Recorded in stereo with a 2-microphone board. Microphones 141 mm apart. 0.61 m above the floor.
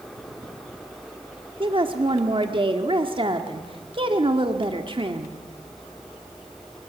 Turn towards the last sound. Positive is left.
turn(degrees=-40)  # may be behind; listen again after turning